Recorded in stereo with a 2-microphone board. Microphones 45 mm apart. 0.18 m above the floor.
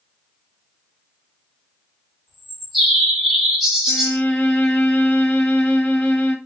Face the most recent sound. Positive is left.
turn(degrees=25)  # may be behind; listen again after turning